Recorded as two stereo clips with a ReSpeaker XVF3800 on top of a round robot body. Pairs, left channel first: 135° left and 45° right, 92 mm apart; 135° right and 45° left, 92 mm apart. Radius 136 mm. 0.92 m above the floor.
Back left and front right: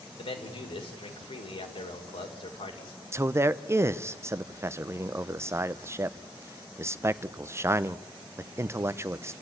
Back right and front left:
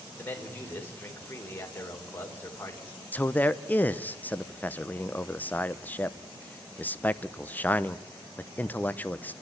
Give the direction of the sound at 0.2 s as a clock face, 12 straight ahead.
7 o'clock.